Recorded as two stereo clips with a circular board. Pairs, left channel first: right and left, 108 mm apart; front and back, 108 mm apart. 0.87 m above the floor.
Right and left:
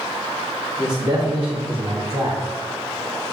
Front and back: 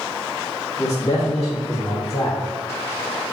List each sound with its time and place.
0.8 s a man speaking: 50° left, 2.5 m; by 2.4 s 60° left, 3.5 m